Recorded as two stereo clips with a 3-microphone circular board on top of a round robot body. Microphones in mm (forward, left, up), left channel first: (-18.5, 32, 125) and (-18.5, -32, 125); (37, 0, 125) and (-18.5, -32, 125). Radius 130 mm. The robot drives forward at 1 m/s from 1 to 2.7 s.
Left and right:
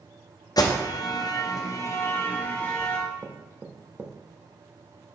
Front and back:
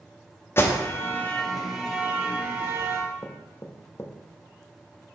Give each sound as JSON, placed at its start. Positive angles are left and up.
{"t": 0.6, "sound": "an alarm", "azimuth_deg": 80, "distance_m": 0.9}
{"t": 3.2, "sound": "knocking", "azimuth_deg": -25, "distance_m": 0.6}